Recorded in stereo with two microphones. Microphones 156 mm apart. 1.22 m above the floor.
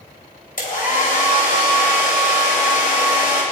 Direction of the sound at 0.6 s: 65° left (ahead or behind).